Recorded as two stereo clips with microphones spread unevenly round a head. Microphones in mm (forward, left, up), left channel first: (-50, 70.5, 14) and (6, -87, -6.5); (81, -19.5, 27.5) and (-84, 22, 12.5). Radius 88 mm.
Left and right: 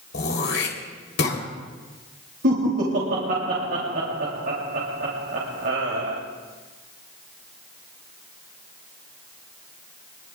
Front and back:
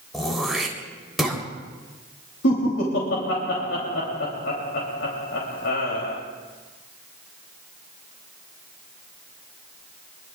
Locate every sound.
0.1 s throat clearing: 75° left, 3.5 m
2.4 s laughter: 40° right, 3 m